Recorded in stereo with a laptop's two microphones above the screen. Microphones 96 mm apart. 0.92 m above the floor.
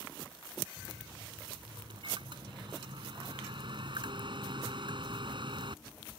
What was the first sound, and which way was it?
A microwave, 55° right (ahead or behind).